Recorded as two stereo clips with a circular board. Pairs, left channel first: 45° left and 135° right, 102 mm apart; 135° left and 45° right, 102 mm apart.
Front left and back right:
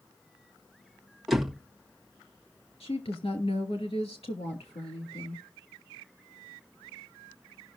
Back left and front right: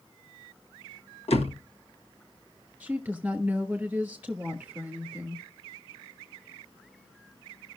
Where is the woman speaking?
30° left, 2.5 m.